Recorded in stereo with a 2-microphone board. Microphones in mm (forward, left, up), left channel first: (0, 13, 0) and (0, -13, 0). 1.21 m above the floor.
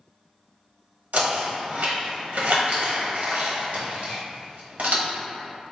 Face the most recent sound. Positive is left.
turn(degrees=-65)  # may be behind; listen again after turning